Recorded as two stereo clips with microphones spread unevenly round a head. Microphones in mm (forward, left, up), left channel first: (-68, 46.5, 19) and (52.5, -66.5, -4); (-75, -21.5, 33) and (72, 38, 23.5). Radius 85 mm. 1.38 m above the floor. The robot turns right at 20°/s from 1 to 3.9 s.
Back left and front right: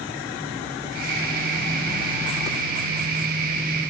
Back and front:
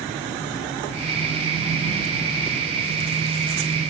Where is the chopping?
I don't hear chopping.